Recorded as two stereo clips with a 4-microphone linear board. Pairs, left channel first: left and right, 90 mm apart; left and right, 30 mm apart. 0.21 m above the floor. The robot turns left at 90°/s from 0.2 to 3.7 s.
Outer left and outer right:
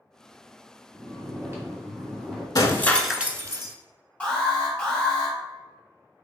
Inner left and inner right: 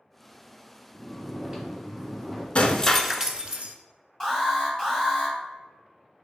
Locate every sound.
0.9 s snoring: 15° right (ahead or behind), 1.6 m; by 2.5 s 5° right (ahead or behind), 1.6 m
2.5 s breaking glass: 45° left, 0.5 m; by 3.8 s 55° right, 0.5 m
4.2 s an alarm: 15° left (ahead or behind), 1.7 m